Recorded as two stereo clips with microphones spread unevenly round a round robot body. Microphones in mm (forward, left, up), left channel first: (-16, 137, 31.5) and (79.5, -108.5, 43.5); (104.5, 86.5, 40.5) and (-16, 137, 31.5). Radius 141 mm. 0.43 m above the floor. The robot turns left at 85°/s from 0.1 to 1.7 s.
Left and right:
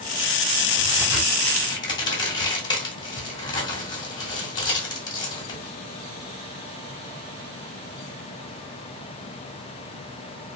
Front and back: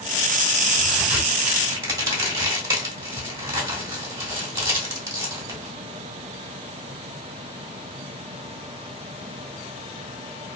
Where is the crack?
115° right, 1.5 m; by 5.7 s 165° left, 1.5 m.